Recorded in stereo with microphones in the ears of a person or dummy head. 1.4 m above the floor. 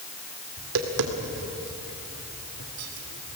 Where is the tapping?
75° right (ahead or behind), 2.5 m.